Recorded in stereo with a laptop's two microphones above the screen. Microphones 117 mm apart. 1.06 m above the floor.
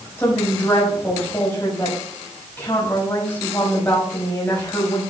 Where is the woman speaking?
20° left (ahead or behind), 5 m.